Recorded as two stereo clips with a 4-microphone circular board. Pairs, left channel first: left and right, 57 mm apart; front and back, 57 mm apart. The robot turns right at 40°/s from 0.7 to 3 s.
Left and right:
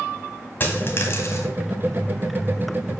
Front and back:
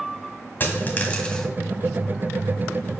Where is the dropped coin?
45° left, 1.4 m; by 1.5 s 80° left, 1.4 m.